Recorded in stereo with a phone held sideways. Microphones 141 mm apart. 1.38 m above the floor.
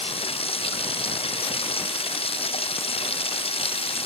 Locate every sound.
0.0 s running water: 40° left (ahead or behind)